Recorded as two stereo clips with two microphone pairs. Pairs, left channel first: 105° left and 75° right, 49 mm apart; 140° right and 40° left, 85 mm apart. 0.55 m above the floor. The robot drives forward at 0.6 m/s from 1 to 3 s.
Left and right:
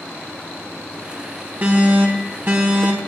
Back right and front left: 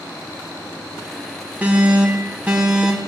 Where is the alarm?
30° right, 4 m; by 3.0 s 40° right, 3 m.